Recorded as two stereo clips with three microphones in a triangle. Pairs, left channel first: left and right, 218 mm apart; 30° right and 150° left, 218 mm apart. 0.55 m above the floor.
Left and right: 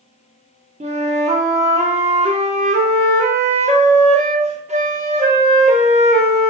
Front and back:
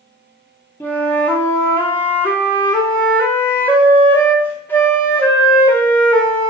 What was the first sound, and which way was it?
A flute, 105° right.